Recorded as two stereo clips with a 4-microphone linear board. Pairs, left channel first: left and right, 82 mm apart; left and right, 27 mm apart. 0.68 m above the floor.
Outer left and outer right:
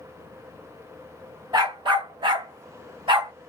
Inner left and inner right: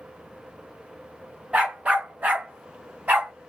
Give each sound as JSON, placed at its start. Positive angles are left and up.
{"t": 1.5, "sound": "a dog barking", "side_deg": -60, "distance_m": 1.1}